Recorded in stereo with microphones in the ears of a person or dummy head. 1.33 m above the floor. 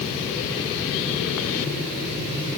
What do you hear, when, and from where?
Only background noise.